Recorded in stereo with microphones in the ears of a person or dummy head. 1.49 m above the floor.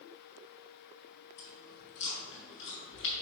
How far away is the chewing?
About 3 m.